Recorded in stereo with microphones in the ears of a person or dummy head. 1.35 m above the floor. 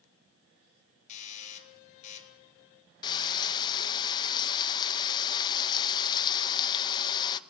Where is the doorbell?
45° left (ahead or behind), 3.5 m.